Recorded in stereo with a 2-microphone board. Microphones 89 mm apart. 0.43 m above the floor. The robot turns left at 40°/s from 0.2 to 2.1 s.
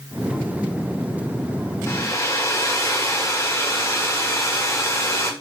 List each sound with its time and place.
1.9 s a hair dryer: 30° left (ahead or behind), 0.9 m; by 5.3 s 35° left (ahead or behind), 0.9 m